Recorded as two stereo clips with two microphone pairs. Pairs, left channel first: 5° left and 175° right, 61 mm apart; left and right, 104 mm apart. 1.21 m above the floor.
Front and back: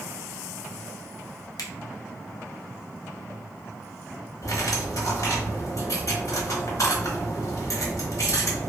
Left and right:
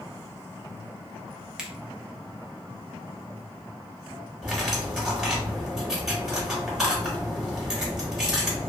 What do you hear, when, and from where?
1.6 s a finger snap: 10° right, 0.6 m
4.4 s cutlery clinking: 10° right, 1.0 m